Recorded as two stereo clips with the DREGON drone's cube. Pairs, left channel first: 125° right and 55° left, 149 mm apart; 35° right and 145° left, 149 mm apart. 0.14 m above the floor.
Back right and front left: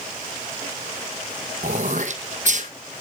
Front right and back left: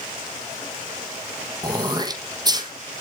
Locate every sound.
1.6 s throat clearing: 85° left, 1.2 m